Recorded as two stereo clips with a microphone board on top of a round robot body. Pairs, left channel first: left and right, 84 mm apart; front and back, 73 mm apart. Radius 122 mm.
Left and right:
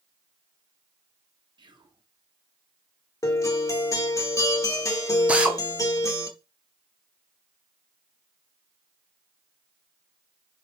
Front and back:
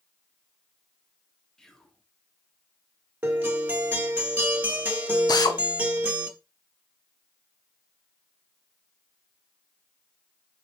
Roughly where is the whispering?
Right.